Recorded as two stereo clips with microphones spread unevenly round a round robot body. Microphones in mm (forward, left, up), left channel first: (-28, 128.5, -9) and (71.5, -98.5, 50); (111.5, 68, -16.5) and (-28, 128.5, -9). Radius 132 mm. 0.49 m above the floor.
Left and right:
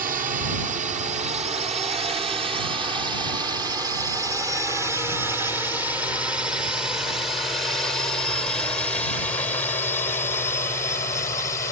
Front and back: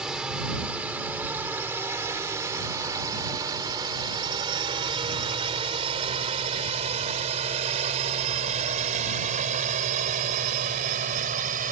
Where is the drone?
120° right; by 11.7 s straight behind.